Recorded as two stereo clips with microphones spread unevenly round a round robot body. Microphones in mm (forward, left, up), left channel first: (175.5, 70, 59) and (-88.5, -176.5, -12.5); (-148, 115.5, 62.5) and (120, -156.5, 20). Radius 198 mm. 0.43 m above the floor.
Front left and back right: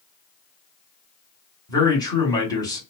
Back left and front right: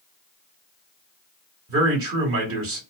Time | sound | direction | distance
1.7 | a man speaking | 45° right | 1.5 m